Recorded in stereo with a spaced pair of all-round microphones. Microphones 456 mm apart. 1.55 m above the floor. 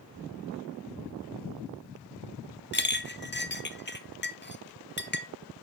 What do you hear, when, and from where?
2.7 s a clink: 25° left (ahead or behind), 0.6 m